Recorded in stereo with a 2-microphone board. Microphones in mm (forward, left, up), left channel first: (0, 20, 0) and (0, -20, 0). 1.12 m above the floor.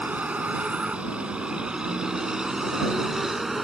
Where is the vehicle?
35° right (ahead or behind); by 3.6 s 5° right (ahead or behind).